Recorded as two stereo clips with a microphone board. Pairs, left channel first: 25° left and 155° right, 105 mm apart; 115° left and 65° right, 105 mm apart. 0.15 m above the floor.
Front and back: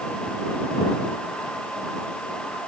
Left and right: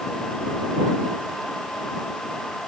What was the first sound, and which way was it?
Only background noise.